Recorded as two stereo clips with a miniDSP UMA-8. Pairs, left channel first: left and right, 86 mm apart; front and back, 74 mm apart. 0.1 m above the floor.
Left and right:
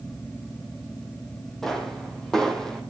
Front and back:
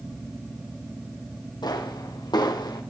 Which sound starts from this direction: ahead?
A pop, at 1.6 s.